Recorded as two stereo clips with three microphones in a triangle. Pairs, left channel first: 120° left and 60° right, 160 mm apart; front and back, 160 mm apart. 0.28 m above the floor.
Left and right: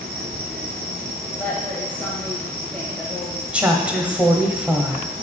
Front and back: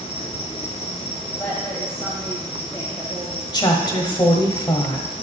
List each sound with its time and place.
0.0 s an insect: 50° right, 1.4 m
1.4 s a woman speaking: 55° left, 1.5 m
3.5 s a woman speaking: 15° left, 1.2 m